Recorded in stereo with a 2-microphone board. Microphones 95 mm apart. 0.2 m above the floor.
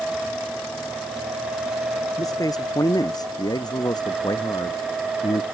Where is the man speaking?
35° left (ahead or behind); by 5.4 s 45° left (ahead or behind).